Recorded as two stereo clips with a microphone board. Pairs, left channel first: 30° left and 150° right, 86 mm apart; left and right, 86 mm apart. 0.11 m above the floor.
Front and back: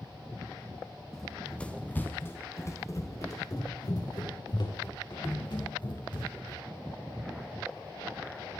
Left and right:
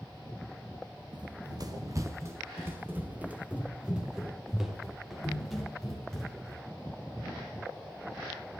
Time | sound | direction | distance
1.1 | running footsteps | 55° right | 2 m